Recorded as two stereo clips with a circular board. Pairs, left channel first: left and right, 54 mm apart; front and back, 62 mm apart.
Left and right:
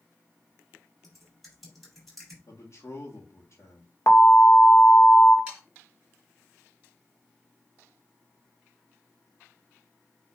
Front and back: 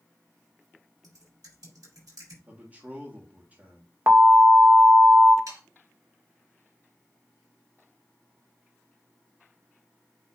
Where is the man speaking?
115° left, 1.8 m.